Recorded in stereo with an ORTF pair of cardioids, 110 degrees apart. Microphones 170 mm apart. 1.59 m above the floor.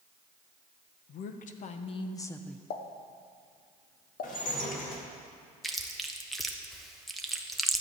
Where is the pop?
65° left, 1.0 m.